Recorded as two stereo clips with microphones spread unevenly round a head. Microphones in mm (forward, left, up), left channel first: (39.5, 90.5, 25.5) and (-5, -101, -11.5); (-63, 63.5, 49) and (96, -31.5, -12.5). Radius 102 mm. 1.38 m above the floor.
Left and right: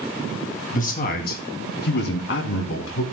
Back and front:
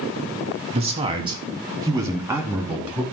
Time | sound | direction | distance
0.7 | a man speaking | 25° left | 3 m